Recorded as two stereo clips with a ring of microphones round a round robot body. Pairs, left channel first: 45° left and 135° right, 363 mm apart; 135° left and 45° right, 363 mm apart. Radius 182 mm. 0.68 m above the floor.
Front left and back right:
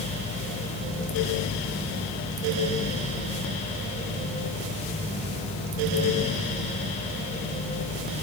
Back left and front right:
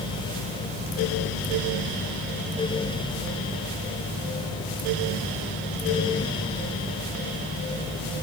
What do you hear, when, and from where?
Only background noise.